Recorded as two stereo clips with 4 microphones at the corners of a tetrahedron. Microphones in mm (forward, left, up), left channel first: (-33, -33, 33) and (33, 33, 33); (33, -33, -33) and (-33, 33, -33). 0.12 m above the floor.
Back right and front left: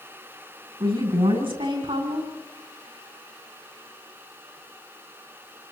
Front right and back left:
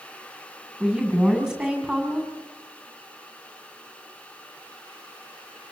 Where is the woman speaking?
60° left, 8 m.